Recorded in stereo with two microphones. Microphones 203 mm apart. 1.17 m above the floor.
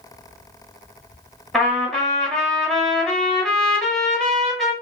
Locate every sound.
1.5 s a trumpet: centre (ahead or behind), 1.1 m